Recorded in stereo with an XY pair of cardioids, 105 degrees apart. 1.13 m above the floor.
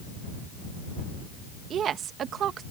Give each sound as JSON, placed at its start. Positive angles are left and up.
{"t": 1.7, "sound": "a woman speaking", "azimuth_deg": -60}